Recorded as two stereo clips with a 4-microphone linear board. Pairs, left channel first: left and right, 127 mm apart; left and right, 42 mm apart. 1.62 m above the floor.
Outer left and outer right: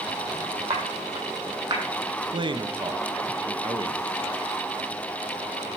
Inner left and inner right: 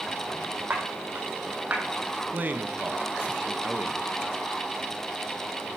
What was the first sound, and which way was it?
Footsteps, 55° right (ahead or behind).